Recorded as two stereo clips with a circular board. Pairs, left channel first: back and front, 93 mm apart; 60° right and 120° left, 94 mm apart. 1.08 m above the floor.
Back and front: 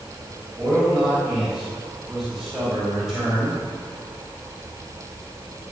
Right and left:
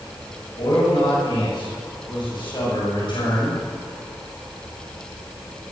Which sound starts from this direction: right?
A man speaking, at 0.6 s.